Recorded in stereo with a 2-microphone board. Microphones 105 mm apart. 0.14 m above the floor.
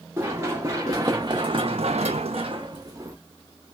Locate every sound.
0.2 s running footsteps: 25° right (ahead or behind), 1.4 m; by 3.2 s 30° right (ahead or behind), 0.8 m